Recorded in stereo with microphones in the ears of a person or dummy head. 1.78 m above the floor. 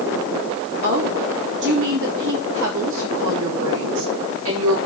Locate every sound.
0.8 s a woman speaking: 65° right (ahead or behind), 3 m; by 4.8 s 85° right, 5 m